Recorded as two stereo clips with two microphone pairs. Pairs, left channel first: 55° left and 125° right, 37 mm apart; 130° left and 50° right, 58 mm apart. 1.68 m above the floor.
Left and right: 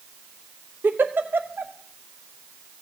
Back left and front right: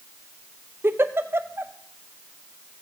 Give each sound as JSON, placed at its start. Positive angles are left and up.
{"t": 0.8, "sound": "a giggle", "azimuth_deg": -100, "distance_m": 0.8}